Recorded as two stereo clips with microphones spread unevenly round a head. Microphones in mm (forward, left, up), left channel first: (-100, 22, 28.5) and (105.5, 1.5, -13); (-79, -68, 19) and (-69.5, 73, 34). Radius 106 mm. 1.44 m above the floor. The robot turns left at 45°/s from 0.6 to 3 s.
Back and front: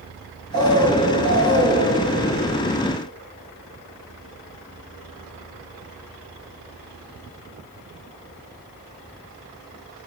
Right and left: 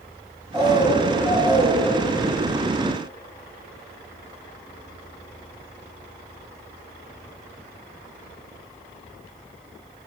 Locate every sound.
0.5 s a bird: 10° left, 3.5 m; by 1.9 s 45° right, 3.5 m